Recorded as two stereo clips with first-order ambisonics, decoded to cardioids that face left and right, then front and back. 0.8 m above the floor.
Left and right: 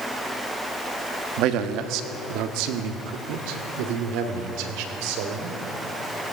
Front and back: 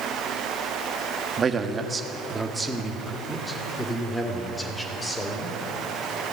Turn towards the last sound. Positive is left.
turn(degrees=-80)